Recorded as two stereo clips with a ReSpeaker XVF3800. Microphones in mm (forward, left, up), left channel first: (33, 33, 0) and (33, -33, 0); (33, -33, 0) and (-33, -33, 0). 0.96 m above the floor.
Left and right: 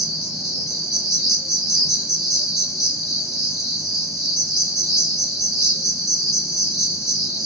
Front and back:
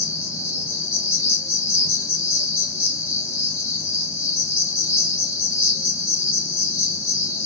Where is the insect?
5° left, 1.5 m.